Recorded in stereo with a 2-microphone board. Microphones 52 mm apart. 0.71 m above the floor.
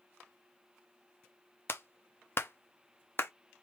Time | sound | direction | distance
1.7 | a clap | 50° left (ahead or behind) | 0.7 m